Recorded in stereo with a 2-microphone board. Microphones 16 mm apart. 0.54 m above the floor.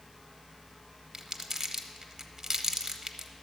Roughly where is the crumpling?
Right.